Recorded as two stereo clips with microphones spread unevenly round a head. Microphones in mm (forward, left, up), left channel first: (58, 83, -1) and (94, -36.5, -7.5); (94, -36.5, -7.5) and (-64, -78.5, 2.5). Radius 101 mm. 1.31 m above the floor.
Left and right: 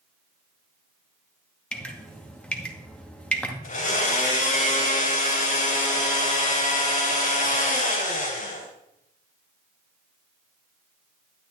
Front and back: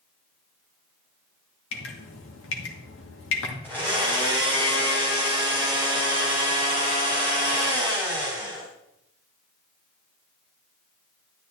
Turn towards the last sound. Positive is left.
turn(degrees=95)